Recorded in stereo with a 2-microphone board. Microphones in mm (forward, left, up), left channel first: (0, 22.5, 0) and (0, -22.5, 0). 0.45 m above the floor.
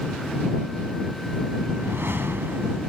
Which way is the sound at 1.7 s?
60° right (ahead or behind).